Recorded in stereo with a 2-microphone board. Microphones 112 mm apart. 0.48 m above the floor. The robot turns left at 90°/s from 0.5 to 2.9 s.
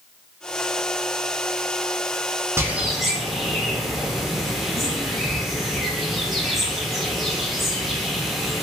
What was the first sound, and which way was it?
A bird, 20° right (ahead or behind).